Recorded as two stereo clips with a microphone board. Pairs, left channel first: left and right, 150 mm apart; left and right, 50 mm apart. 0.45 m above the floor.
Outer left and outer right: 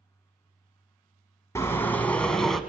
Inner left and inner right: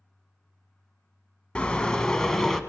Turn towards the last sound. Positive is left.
turn(degrees=0)  # may be behind; listen again after turning